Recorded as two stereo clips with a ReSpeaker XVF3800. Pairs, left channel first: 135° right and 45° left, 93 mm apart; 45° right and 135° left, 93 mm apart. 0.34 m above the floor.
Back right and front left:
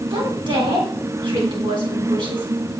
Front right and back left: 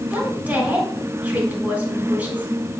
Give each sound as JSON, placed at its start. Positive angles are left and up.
{"t": 0.1, "sound": "a woman speaking", "azimuth_deg": 65, "distance_m": 3.5}